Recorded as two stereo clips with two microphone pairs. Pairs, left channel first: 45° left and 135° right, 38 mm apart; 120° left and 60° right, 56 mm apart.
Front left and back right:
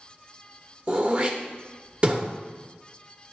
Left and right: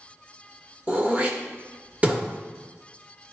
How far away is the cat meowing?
No cat meowing in this recording.